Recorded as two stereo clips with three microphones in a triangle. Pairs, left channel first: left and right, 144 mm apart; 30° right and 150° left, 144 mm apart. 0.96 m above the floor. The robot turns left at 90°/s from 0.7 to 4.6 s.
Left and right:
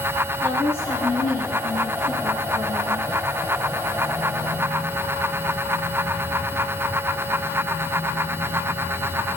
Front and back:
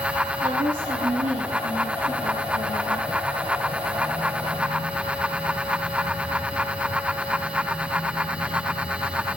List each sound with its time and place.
0.4 s a woman speaking: 165° left, 10 m; by 3.1 s 45° right, 10 m